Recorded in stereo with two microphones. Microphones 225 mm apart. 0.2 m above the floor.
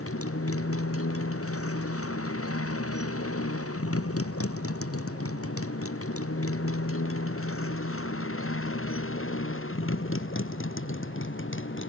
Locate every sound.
0.0 s a motorcycle: 80° left; by 11.9 s 60° left (ahead or behind)